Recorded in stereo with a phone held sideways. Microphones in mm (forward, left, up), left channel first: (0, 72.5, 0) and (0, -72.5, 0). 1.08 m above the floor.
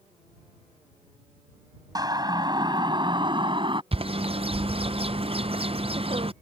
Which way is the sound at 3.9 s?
40° right (ahead or behind).